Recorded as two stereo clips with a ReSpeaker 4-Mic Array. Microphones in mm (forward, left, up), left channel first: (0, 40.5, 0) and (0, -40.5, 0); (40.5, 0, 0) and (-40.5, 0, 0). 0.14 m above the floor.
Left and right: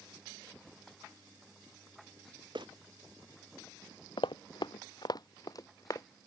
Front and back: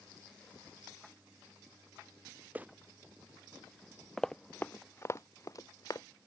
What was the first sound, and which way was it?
Footsteps, 110° right.